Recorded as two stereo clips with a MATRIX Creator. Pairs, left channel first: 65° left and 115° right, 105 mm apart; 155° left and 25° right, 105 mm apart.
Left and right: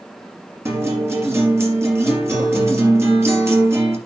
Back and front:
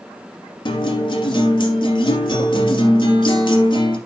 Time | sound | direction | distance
0.7 | a guitar | 175° right | 3 m